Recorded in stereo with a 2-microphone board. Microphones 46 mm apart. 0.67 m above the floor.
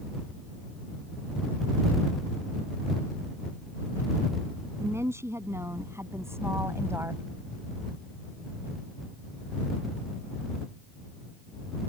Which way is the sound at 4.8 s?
80° right.